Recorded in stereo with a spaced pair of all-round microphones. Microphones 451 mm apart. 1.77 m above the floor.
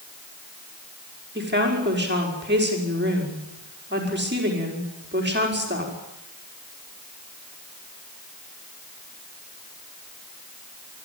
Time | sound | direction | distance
1.4 | a woman speaking | 25° right (ahead or behind) | 5 m